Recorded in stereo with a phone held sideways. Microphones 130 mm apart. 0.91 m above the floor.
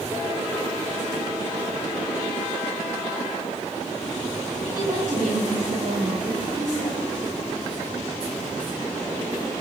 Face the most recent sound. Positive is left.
turn(degrees=-70)  # may be behind; listen again after turning